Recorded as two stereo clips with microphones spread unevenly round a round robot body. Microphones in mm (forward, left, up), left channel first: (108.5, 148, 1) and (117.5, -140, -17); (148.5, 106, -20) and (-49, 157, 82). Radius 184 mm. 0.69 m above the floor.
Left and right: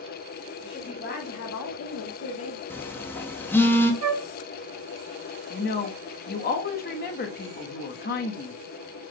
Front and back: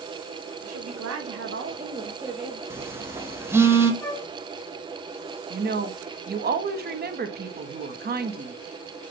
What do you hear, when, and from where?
0.6 s a woman speaking: 170° left, 2 m; by 2.6 s 50° left, 1.8 m
2.7 s a phone buzzing: 10° left, 1.1 m
4.0 s a flute: 85° right, 1.0 m
5.5 s a woman speaking: 110° left, 1.1 m